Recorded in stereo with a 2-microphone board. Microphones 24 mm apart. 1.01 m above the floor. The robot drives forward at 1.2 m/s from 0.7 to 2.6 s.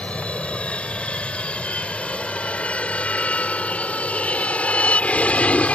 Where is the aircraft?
50° left (ahead or behind); by 5.8 s 60° left (ahead or behind).